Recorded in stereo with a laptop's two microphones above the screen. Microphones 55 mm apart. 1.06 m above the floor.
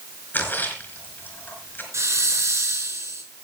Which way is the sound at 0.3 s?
35° left (ahead or behind).